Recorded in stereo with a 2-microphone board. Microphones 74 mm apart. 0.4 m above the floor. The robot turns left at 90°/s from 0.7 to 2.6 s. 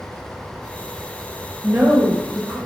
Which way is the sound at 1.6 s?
40° right.